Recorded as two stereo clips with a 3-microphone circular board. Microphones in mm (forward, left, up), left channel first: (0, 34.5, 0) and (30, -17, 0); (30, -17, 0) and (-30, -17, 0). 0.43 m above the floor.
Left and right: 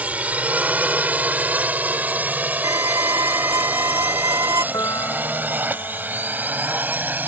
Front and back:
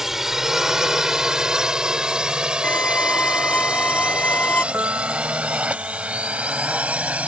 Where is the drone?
100° right; by 7.3 s 115° right.